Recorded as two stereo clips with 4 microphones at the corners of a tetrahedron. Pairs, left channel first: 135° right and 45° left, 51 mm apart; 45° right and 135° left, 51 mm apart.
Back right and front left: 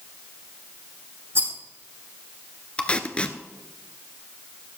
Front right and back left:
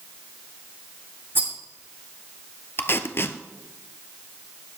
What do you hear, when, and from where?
1.4 s a rattle: 90° left, 3.5 m
2.8 s tape being pulled: 70° right, 1.0 m